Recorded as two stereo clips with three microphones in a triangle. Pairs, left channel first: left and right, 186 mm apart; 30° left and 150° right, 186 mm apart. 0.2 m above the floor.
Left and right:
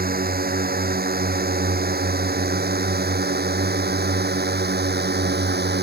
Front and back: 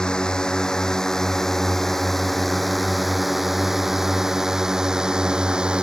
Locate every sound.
0.0 s a drone: 55° right; by 5.8 s 65° right